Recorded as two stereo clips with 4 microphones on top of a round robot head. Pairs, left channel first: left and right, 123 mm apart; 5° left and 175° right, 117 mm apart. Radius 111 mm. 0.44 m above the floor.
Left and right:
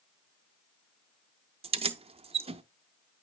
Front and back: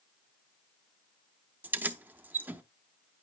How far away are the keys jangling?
About 0.9 m.